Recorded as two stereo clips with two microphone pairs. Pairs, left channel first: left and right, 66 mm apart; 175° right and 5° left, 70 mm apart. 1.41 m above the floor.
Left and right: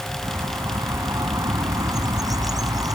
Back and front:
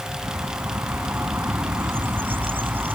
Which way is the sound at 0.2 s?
55° right.